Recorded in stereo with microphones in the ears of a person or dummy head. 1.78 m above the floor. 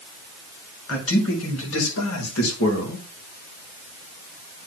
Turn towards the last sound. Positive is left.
turn(degrees=80)